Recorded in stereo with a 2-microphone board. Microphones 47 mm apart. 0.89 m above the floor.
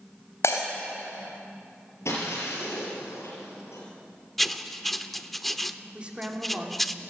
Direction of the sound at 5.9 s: 20° right (ahead or behind).